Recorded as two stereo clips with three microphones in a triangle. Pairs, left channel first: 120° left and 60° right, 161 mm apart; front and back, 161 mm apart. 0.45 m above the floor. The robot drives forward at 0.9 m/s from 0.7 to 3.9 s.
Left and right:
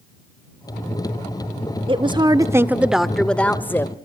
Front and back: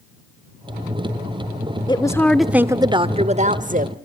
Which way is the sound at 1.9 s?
35° right.